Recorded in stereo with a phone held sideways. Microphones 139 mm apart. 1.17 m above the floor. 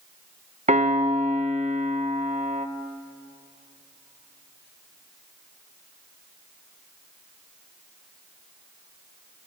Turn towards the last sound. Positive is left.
turn(degrees=-55)  # may be behind; listen again after turning